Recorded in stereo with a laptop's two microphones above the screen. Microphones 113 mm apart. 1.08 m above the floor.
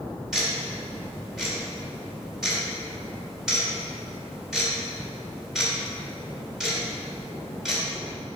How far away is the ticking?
About 3 m.